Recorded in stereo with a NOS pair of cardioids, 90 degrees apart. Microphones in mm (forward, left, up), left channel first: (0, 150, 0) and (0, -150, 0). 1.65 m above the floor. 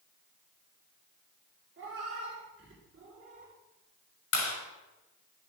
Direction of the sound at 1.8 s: 45° right.